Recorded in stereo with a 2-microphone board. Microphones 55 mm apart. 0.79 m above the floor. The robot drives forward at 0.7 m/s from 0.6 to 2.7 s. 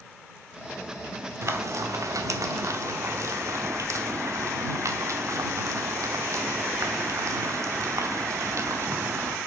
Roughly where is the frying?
Right.